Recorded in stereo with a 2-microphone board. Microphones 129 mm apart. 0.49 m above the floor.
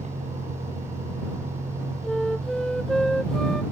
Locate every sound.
0.0 s a vehicle: 55° right (ahead or behind)
2.0 s a flute: 5° left (ahead or behind)